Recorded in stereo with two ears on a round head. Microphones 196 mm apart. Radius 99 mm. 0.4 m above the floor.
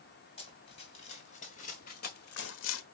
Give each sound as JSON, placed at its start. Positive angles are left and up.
{"t": 0.4, "sound": "running footsteps", "side_deg": 25, "distance_m": 4.0}